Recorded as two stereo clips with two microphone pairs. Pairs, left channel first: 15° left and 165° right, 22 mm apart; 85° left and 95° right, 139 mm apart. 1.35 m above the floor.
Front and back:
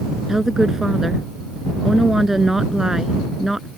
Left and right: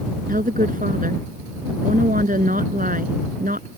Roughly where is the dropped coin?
I don't hear a dropped coin.